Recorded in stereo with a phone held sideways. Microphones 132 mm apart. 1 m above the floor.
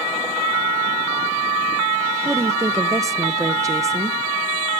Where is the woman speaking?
25° right (ahead or behind), 0.5 m.